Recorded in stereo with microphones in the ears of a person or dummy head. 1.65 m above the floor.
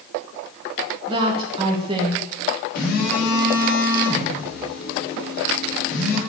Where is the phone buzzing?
60° left (ahead or behind), 4 m.